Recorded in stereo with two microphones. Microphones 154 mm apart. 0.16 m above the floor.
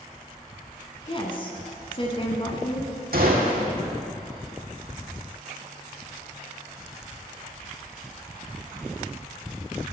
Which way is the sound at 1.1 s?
35° left (ahead or behind).